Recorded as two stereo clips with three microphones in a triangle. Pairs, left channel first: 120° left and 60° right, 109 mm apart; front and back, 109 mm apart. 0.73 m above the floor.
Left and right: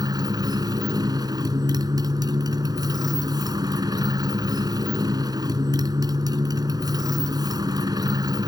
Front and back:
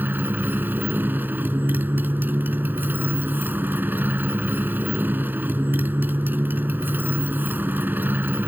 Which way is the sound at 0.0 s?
110° right.